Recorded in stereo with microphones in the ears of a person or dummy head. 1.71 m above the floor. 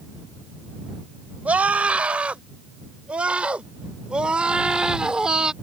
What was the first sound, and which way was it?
A scream, 10° right (ahead or behind).